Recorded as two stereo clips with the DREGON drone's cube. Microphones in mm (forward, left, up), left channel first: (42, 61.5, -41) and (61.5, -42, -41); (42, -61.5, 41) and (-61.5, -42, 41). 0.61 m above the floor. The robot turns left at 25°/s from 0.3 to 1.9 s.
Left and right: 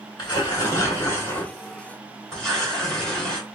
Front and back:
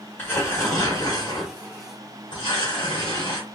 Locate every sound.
0.2 s tearing paper: 60° left, 1.7 m; by 3.5 s 20° left, 1.7 m